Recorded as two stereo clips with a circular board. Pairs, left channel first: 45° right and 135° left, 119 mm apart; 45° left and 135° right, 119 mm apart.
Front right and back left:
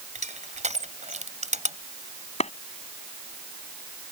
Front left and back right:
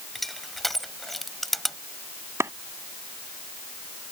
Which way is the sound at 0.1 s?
135° left.